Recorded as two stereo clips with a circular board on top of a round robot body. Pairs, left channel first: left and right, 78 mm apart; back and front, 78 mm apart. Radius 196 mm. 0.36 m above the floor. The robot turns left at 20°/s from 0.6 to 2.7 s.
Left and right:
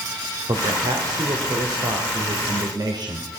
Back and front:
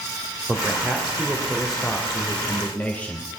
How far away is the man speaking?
About 2.5 m.